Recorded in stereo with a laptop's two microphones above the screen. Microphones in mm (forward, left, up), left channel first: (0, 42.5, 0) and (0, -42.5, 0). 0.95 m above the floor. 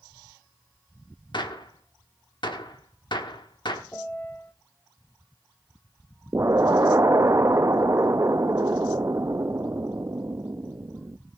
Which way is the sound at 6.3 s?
35° right (ahead or behind).